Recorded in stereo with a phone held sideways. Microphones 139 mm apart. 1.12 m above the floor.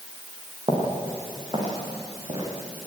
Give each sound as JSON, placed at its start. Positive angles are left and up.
{"t": 0.7, "sound": "footsteps", "side_deg": -40, "distance_m": 8.0}